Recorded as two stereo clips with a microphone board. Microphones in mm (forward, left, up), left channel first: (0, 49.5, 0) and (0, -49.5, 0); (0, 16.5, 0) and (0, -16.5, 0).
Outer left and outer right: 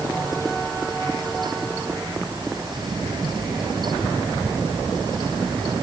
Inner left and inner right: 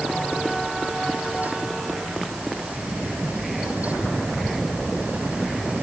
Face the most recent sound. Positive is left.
No sound to turn to.